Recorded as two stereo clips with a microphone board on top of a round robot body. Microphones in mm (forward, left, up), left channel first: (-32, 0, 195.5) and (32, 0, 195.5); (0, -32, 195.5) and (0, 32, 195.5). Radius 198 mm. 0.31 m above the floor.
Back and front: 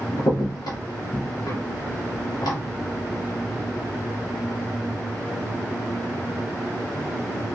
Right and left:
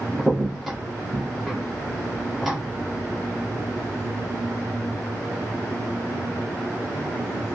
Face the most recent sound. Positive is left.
turn(degrees=175)